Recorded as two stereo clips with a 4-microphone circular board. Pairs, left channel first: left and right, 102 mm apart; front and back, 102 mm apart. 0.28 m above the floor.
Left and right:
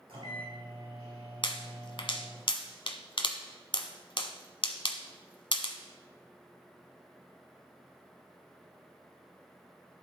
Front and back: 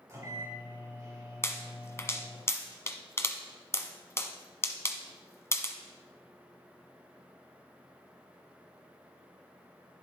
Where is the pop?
60° left, 0.9 m.